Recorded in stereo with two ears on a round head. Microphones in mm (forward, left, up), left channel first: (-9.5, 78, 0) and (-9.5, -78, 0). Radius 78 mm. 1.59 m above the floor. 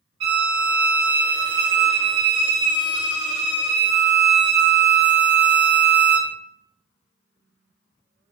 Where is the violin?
30° right (ahead or behind), 1.7 m.